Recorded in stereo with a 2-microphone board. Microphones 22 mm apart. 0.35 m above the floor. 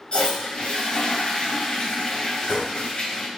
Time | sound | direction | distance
0.1 | a toilet flushing | 50° left (ahead or behind) | 1.8 m